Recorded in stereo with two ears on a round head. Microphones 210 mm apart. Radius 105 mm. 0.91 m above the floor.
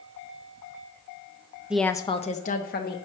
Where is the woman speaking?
5° right (ahead or behind), 0.6 m; by 3.0 s 45° left (ahead or behind), 1.3 m.